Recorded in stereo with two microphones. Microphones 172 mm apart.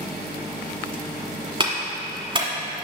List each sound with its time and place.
1.6 s a clap: 30° right (ahead or behind), 1.4 m